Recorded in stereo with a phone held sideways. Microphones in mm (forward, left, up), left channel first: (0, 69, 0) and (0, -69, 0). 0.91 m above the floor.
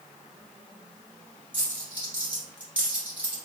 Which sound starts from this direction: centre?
A dropped coin, at 1.5 s.